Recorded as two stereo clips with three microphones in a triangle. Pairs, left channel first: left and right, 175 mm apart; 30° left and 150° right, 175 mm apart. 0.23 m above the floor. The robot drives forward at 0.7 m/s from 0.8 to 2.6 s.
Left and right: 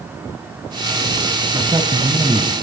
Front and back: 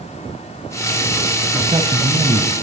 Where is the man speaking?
120° right, 1.4 m; by 2.5 s 145° right, 1.7 m.